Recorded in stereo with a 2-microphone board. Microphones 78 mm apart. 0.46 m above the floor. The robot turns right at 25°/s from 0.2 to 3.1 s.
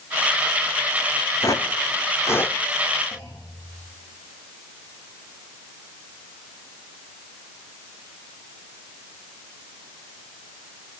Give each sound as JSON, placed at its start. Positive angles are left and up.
{"t": 1.4, "sound": "footsteps", "side_deg": 45, "distance_m": 1.5}
{"t": 3.1, "sound": "a clunk", "side_deg": 55, "distance_m": 7.0}